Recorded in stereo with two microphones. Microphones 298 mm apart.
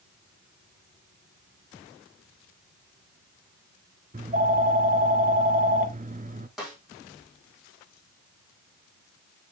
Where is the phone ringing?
30° right (ahead or behind), 0.7 m.